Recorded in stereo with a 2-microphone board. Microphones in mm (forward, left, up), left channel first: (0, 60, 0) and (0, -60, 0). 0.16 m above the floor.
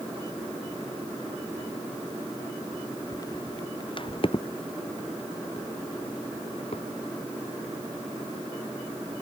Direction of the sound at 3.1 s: 25° left (ahead or behind).